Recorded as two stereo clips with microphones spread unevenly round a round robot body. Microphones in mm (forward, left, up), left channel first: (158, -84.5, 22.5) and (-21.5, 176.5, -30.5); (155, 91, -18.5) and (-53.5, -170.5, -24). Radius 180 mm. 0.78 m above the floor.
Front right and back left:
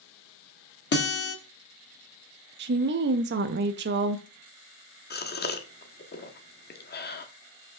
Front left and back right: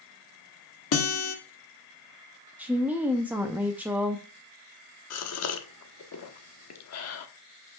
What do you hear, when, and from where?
0.9 s a guitar: 5° left, 1.7 m
2.6 s a woman speaking: 150° left, 0.5 m
5.1 s a gasp: 5° left, 1.2 m